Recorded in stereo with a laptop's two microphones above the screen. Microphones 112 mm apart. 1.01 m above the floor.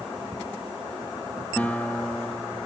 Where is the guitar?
15° left (ahead or behind), 0.6 m.